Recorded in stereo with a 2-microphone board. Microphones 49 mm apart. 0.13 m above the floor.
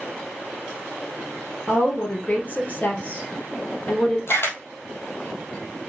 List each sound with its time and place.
1.7 s a woman speaking: 35° left (ahead or behind), 3 m
4.3 s a camera shutter: 55° left (ahead or behind), 2 m